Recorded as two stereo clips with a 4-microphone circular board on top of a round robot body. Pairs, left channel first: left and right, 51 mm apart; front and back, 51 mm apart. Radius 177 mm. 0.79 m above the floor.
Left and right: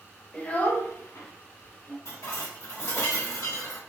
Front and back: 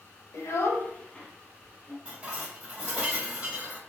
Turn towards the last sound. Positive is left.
turn(degrees=115)